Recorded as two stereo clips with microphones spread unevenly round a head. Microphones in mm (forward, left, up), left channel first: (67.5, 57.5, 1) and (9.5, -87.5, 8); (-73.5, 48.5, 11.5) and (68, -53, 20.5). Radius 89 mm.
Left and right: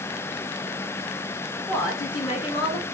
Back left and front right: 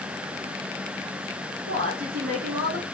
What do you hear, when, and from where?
1.7 s a woman speaking: straight ahead, 2.5 m; by 2.8 s 15° left, 2.5 m